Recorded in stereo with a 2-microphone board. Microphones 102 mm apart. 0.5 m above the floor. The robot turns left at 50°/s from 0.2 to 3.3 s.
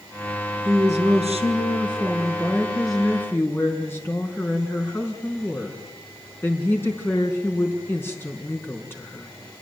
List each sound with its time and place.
0.7 s a woman speaking: 70° right, 4.5 m; by 9.3 s 160° left, 4.5 m